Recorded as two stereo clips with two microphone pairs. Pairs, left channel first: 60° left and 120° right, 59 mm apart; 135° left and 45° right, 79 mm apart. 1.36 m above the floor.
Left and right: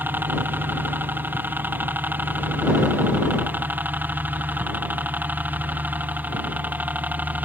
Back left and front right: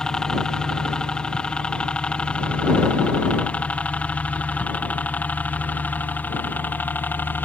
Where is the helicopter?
150° right; by 7.5 s 170° right.